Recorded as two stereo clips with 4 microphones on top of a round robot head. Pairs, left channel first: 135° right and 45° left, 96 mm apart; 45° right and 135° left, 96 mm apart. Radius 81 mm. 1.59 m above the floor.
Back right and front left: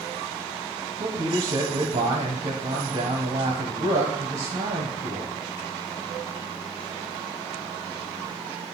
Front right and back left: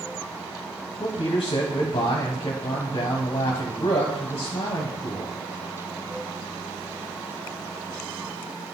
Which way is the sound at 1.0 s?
5° left.